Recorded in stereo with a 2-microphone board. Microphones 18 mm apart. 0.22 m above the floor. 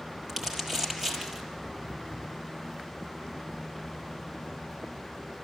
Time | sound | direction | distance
0.3 | crumpling | 25° right (ahead or behind) | 6 m